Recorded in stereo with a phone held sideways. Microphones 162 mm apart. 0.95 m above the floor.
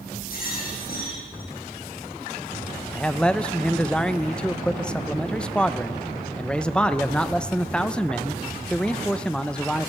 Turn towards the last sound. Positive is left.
turn(degrees=5)  # may be behind; listen again after turning